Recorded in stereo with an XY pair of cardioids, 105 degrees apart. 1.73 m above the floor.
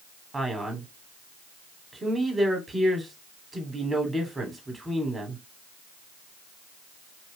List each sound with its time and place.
0.3 s a man speaking: 15° right, 1.3 m